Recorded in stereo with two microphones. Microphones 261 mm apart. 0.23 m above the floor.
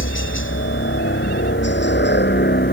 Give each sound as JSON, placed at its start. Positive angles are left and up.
{"t": 0.0, "sound": "a helicopter", "side_deg": 50}